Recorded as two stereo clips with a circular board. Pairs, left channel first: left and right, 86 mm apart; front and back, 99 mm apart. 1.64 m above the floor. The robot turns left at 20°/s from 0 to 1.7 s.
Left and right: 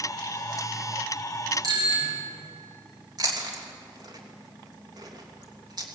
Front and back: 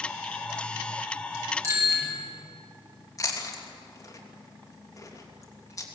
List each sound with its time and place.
1.6 s a bicycle bell: 125° right, 8 m
3.2 s chewing: 55° right, 2.5 m